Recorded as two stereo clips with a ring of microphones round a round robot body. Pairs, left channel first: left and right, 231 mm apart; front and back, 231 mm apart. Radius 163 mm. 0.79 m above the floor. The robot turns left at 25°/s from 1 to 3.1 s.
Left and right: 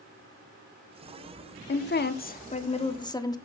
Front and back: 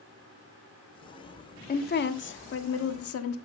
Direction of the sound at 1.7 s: 50° left.